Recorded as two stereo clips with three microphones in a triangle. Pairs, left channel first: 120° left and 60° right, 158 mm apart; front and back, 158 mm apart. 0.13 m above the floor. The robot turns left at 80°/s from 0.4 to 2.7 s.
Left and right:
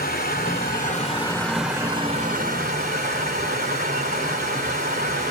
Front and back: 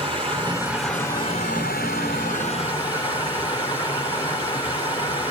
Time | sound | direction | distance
0.0 | running water | 125° left | 1.9 m